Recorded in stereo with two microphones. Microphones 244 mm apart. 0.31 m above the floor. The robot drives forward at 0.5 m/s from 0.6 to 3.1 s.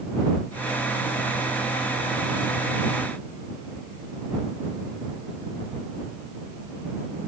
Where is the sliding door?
I don't hear a sliding door.